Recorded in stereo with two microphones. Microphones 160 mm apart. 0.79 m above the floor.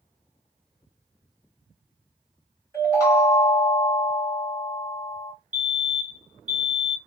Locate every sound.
2.7 s a chime: 20° left (ahead or behind), 1.8 m
5.5 s a fire alarm: 10° right (ahead or behind), 1.8 m